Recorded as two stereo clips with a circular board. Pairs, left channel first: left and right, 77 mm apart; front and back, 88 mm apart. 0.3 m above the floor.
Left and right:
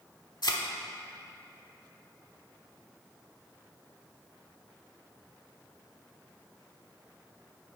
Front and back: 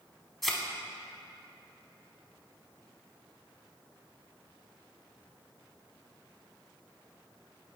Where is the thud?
90° left, 0.8 m.